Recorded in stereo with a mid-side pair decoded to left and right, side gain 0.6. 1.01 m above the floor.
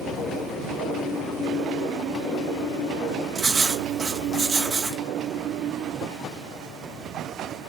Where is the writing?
30° right, 1.1 m.